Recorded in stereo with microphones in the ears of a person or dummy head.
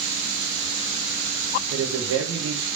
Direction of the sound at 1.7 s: 80° right.